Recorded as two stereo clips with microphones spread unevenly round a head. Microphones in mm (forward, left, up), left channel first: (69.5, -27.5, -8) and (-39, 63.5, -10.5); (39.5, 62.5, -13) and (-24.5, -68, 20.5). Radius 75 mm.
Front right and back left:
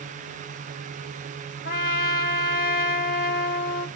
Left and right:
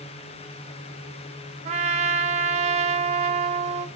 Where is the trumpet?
65° right, 1.1 m.